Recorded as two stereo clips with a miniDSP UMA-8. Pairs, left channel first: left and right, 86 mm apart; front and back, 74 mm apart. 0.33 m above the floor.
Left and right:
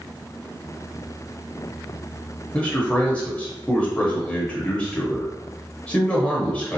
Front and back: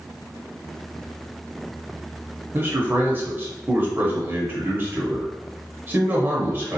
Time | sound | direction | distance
2.5 | a man speaking | 150° left | 0.9 m